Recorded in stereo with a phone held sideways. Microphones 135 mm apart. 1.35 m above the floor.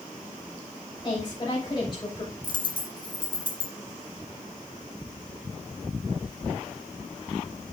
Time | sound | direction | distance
1.0 | a woman speaking | 35° left (ahead or behind) | 7 m
2.4 | a dropped coin | 35° left (ahead or behind) | 2 m